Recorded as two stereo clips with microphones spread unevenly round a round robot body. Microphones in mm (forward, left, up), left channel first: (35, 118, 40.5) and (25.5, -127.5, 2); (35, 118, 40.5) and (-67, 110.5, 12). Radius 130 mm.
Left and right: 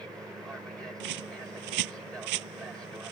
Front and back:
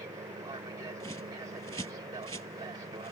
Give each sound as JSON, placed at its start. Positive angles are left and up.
{"t": 0.0, "sound": "an aircraft", "azimuth_deg": -175}
{"t": 1.0, "sound": "a bird", "azimuth_deg": -105}